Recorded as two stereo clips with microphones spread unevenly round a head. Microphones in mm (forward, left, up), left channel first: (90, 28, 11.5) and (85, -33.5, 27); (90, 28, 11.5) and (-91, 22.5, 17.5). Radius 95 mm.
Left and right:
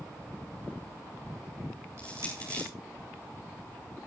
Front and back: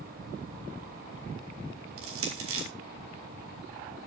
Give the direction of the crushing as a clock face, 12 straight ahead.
6 o'clock.